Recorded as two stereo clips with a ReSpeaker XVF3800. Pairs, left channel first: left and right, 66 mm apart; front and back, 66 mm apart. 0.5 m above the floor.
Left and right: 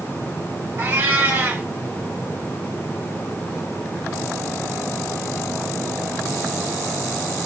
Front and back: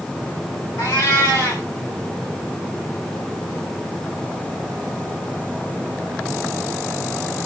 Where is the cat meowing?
40° right, 2.5 m.